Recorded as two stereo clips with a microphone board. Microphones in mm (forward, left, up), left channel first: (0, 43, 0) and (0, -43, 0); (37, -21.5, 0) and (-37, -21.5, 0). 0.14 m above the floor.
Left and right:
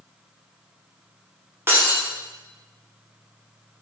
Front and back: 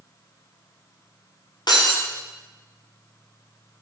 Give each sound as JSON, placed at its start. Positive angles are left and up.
{"t": 1.7, "sound": "breaking glass", "azimuth_deg": -25, "distance_m": 4.0}